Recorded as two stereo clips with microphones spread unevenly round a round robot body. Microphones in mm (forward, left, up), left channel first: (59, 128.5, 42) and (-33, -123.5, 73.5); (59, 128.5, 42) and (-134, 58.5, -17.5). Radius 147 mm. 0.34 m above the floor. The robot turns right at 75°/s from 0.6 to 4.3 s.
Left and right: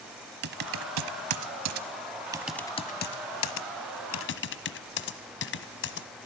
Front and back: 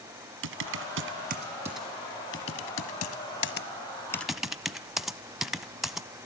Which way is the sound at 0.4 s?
165° right.